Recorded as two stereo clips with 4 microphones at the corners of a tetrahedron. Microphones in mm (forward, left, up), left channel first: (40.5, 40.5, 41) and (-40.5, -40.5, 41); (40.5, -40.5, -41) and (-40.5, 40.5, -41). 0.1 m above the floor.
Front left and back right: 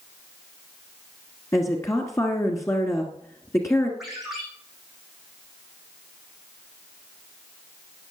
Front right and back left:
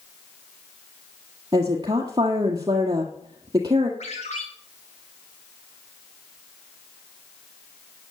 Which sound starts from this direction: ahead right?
A ringtone, at 4.0 s.